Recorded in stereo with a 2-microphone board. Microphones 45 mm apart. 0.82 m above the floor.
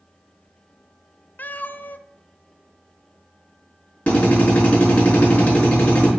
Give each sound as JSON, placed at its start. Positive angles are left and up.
{"t": 1.4, "sound": "a cat meowing", "side_deg": 40, "distance_m": 0.5}
{"t": 4.1, "sound": "a drill", "side_deg": 30, "distance_m": 4.5}